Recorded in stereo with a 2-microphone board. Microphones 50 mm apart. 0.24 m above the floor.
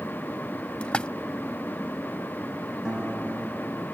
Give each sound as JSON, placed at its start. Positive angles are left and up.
{"t": 0.8, "sound": "a splash", "side_deg": 20}
{"t": 2.9, "sound": "a guitar", "side_deg": -15}